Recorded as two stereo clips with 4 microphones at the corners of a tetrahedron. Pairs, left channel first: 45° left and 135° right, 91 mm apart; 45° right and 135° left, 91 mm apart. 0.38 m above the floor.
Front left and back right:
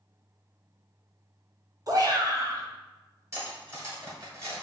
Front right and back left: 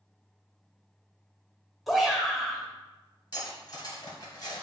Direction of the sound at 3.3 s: 80° right.